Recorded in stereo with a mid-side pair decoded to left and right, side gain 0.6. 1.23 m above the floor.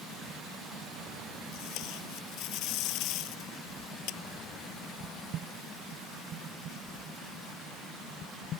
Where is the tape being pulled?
65° left.